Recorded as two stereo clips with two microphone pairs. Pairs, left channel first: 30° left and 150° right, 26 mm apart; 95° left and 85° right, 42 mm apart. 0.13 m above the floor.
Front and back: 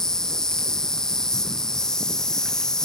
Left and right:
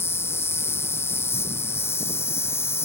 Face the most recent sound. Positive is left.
turn(degrees=100)